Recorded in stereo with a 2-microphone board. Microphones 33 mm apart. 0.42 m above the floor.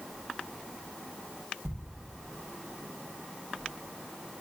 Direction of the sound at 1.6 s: 70° right (ahead or behind).